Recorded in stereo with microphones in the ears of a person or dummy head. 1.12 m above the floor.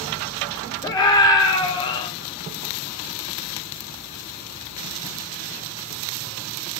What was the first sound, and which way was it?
A scream, 25° left (ahead or behind).